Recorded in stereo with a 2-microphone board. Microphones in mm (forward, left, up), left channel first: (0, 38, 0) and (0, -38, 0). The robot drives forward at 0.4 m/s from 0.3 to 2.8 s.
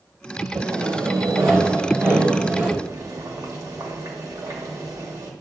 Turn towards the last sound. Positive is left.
turn(degrees=-50)  # may be behind; listen again after turning